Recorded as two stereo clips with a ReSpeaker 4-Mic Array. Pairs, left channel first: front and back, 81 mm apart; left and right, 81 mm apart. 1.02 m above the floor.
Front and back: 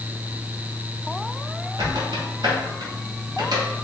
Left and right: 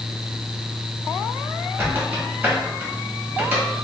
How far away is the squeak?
About 1.7 m.